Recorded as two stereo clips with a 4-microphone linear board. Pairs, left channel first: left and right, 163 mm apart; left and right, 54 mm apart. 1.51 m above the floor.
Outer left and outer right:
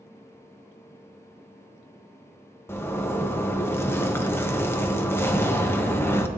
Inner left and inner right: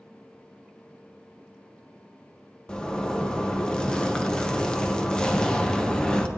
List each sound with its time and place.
2.7 s a zipper: 15° left (ahead or behind), 0.7 m